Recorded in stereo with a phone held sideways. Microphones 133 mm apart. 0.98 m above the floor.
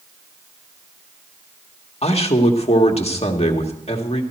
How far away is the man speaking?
About 1.7 m.